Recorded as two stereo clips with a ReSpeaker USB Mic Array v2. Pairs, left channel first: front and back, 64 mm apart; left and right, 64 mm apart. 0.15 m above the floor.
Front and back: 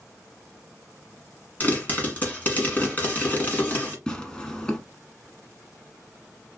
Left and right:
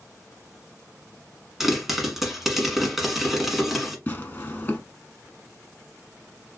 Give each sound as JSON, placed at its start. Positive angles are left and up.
{"t": 1.6, "sound": "a pop", "azimuth_deg": -10, "distance_m": 1.2}
{"t": 4.1, "sound": "tearing paper", "azimuth_deg": 65, "distance_m": 0.8}